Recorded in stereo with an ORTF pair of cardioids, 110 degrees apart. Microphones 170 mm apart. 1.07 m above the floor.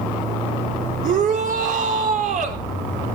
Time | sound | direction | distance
1.0 | a shout | 55° right | 3 m